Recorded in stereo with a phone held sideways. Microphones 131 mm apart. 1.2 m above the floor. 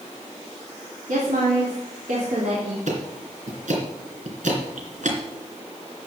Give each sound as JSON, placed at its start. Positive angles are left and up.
{"t": 1.1, "sound": "a woman speaking", "side_deg": -85, "distance_m": 3.0}
{"t": 2.9, "sound": "ticking", "side_deg": -70, "distance_m": 3.0}